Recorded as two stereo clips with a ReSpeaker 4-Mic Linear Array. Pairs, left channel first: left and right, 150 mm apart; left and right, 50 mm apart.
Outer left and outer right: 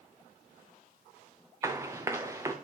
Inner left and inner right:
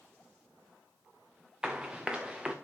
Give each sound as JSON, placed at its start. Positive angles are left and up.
{"t": 1.6, "sound": "running footsteps", "side_deg": -20, "distance_m": 1.4}